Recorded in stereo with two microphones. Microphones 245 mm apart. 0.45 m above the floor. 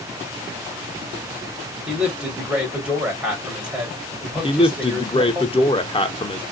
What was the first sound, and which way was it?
A man speaking, 5° right (ahead or behind).